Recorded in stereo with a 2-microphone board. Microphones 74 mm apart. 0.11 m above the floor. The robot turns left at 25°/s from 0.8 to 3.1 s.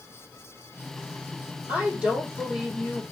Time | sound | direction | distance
1.7 | a woman speaking | 155° right | 4.5 m